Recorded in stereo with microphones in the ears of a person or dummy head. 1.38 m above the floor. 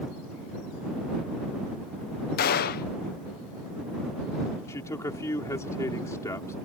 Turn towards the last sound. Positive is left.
turn(degrees=15)  # may be behind; listen again after turning